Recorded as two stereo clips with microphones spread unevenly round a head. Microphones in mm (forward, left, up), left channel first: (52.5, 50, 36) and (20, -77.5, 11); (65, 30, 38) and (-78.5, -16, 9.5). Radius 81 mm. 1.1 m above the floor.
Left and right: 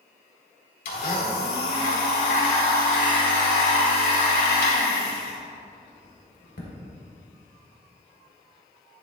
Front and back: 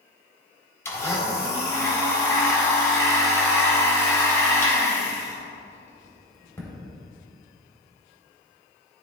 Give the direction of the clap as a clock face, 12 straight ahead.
I don't hear a clap.